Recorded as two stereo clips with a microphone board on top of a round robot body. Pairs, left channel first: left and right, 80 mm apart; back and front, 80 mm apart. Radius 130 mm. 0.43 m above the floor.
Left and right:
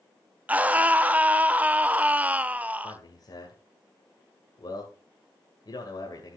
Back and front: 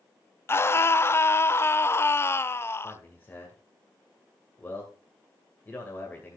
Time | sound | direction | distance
0.5 | a scream | 145° right | 0.9 m
2.8 | a man speaking | 115° left | 2 m